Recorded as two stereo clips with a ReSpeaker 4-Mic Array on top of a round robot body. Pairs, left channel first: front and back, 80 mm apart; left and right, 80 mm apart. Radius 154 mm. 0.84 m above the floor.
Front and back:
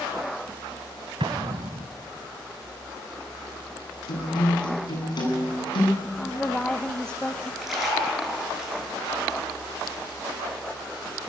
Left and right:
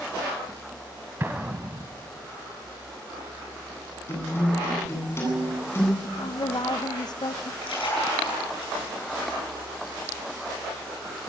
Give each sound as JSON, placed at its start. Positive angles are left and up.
{"t": 1.2, "sound": "an explosion", "azimuth_deg": -155, "distance_m": 1.3}
{"t": 4.1, "sound": "a guitar", "azimuth_deg": 30, "distance_m": 9.5}
{"t": 6.0, "sound": "a woman speaking", "azimuth_deg": 80, "distance_m": 1.1}
{"t": 7.6, "sound": "a splash", "azimuth_deg": 90, "distance_m": 9.0}